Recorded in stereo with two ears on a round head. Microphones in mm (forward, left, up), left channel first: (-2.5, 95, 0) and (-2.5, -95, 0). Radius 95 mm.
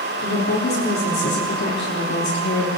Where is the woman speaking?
50° left (ahead or behind), 4 m; by 2.7 s 55° left (ahead or behind), 2.5 m.